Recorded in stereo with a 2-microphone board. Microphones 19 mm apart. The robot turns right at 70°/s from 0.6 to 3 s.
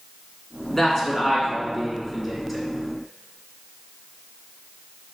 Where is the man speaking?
20° left (ahead or behind), 1.1 m; by 2.6 s 5° right (ahead or behind), 1.1 m.